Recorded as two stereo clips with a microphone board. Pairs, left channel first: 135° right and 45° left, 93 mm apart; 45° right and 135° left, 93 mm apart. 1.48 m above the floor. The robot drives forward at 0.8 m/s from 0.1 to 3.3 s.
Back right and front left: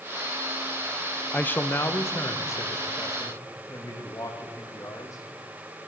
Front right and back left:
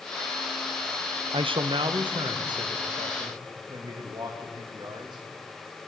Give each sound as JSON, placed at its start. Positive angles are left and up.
{"t": 1.3, "sound": "a man speaking", "azimuth_deg": 150, "distance_m": 0.6}